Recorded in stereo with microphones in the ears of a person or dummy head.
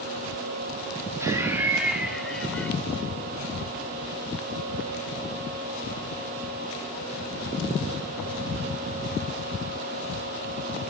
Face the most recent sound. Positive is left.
turn(degrees=10)  # may be behind; listen again after turning